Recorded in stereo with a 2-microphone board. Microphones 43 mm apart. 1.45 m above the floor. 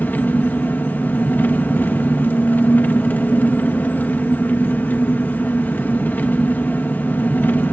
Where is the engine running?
45° left (ahead or behind), 1.4 m.